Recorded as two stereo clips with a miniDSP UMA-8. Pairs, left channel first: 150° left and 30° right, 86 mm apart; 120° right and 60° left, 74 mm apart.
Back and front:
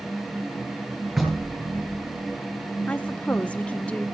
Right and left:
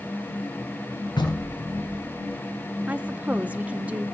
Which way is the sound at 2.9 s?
95° left.